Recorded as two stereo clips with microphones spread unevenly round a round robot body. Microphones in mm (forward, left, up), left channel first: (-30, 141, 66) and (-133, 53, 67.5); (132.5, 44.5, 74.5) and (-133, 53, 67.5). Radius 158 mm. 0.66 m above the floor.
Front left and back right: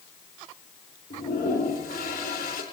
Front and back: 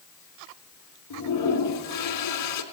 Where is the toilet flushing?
10° right, 3 m.